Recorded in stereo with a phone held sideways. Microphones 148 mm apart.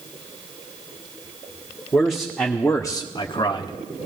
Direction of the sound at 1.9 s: 5° left (ahead or behind).